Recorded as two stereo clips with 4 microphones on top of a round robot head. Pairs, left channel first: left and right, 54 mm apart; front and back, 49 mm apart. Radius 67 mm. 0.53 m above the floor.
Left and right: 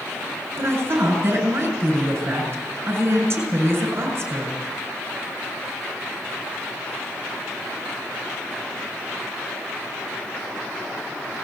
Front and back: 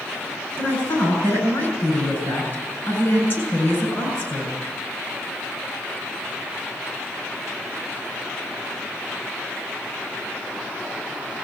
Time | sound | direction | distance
0.6 | a woman speaking | 50° right | 7.5 m